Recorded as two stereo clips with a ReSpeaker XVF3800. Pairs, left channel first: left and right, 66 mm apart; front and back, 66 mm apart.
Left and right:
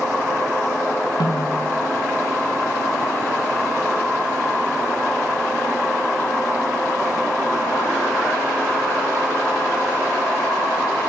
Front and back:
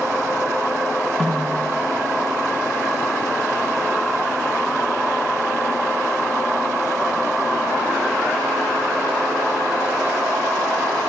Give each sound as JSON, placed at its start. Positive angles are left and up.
{"t": 1.2, "sound": "a snare drum", "azimuth_deg": 90, "distance_m": 7.0}